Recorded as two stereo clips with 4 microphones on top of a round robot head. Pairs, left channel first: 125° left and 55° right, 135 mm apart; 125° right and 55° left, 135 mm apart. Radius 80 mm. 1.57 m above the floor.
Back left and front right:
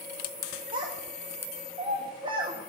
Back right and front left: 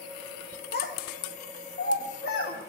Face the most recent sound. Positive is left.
turn(degrees=-110)